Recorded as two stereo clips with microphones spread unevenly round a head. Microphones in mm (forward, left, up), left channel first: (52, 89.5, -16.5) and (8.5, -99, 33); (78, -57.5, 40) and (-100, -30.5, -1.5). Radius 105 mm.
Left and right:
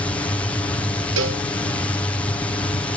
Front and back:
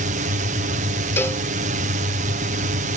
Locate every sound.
0.0 s a drone: 150° left
1.2 s a cowbell: 85° right